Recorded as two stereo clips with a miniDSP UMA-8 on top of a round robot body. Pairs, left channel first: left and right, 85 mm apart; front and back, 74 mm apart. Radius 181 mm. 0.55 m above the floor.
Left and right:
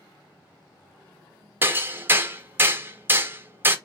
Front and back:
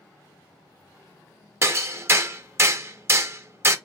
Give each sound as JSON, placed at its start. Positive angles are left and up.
{"t": 1.6, "sound": "hammering", "azimuth_deg": -145, "distance_m": 0.9}